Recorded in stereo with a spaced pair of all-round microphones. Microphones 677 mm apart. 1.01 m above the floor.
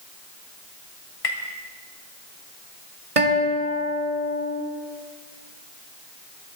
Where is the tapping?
60° left (ahead or behind), 1.7 m.